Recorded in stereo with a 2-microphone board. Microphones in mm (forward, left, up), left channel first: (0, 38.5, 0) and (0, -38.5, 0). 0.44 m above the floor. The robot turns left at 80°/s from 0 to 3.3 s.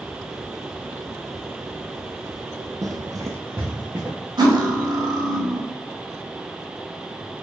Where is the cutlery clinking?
70° right (ahead or behind), 0.9 m.